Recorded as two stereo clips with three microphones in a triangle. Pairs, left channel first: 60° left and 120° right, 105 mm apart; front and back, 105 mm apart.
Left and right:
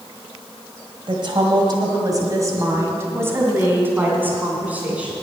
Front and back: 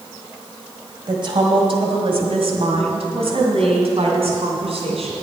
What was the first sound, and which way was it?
A woman speaking, 150° right.